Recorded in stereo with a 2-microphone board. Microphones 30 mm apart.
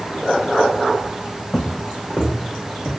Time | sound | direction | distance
1.5 | footsteps | 25° left (ahead or behind) | 0.8 m